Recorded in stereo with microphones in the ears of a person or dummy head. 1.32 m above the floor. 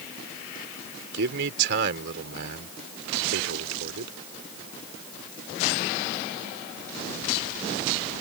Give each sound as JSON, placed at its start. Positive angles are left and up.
{"t": 1.1, "sound": "a man speaking", "side_deg": -75}